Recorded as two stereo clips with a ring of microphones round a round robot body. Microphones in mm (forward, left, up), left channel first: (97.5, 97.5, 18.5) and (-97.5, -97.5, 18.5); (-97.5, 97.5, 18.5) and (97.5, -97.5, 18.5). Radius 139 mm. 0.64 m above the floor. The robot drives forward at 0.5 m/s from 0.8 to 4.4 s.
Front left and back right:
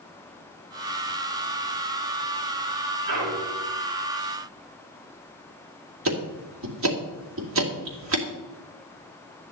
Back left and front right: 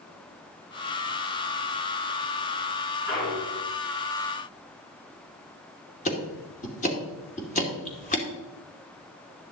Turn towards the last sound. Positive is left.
turn(degrees=-165)